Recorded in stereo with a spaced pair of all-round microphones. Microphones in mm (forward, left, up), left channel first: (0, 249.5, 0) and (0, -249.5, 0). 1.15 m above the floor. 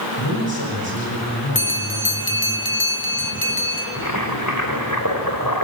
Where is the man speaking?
45° left (ahead or behind), 7 m.